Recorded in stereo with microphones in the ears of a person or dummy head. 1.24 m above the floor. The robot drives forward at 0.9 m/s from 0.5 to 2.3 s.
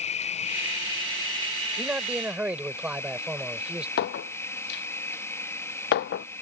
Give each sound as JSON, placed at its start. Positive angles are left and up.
{"t": 0.0, "sound": "an insect", "side_deg": 35}
{"t": 1.8, "sound": "a man speaking", "side_deg": -5}
{"t": 4.0, "sound": "a clink", "side_deg": 60}